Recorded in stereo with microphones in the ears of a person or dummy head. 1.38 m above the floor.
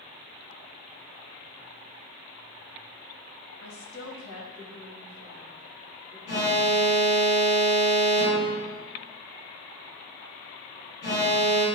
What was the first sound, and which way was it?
A woman speaking, 65° left (ahead or behind).